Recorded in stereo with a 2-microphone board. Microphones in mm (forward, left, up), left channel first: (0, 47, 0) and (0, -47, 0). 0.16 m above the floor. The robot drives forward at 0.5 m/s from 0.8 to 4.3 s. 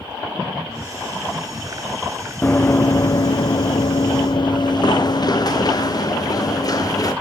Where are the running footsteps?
20° left (ahead or behind), 0.6 m; by 7.1 s 40° left (ahead or behind), 3 m.